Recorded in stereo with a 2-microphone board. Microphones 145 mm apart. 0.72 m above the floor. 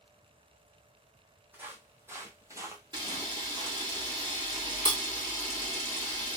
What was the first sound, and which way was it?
Footsteps, 15° right (ahead or behind).